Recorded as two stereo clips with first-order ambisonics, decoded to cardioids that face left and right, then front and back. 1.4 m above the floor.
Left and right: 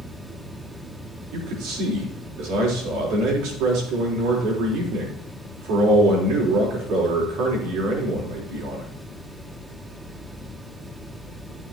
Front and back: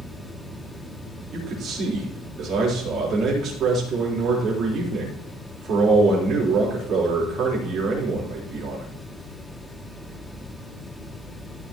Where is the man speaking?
115° right, 4 m.